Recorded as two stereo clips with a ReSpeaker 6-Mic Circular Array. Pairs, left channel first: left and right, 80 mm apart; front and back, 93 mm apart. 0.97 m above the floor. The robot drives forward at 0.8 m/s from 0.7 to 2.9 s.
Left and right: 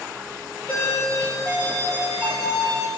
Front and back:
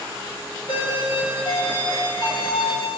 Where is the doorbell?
20° left, 6.5 m; by 2.9 s 30° left, 5 m.